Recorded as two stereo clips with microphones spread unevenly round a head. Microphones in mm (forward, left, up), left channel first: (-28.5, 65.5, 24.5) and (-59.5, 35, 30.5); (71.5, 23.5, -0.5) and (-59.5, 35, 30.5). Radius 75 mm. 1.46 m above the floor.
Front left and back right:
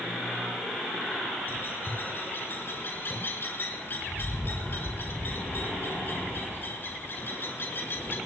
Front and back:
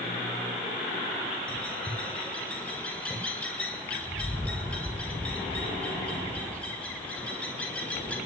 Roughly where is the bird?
Left.